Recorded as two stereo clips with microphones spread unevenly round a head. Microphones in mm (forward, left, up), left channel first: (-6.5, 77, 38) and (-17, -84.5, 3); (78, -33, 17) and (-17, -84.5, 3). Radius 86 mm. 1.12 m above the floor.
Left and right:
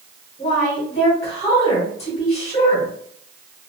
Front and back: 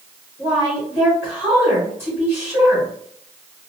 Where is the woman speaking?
140° left, 1.3 m.